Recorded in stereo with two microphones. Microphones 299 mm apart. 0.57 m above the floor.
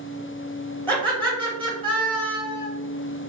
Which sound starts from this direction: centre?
Laughter, at 0.9 s.